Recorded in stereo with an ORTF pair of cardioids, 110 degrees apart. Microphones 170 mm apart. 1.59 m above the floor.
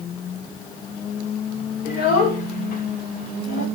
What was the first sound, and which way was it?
A child speaking, 65° left.